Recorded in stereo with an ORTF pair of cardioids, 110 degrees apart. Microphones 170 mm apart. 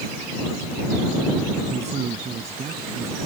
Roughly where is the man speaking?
Ahead right.